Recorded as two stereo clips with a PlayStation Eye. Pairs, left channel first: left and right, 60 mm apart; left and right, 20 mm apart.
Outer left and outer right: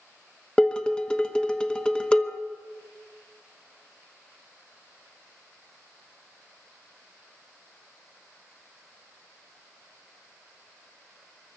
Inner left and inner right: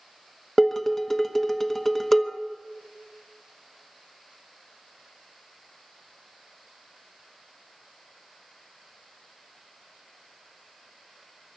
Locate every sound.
0.6 s dishes clattering: 15° left (ahead or behind), 1.1 m